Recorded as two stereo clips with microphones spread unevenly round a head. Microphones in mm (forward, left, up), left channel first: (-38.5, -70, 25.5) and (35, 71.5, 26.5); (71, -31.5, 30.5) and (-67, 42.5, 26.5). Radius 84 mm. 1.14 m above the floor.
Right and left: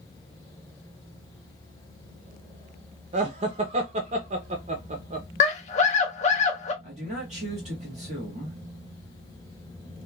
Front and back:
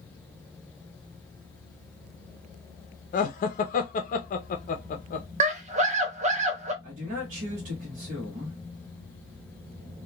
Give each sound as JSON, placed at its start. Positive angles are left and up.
{"t": 3.1, "sound": "laughter", "azimuth_deg": 15, "distance_m": 0.6}
{"t": 5.4, "sound": "a scream", "azimuth_deg": -165, "distance_m": 1.0}
{"t": 6.8, "sound": "a man speaking", "azimuth_deg": 110, "distance_m": 1.1}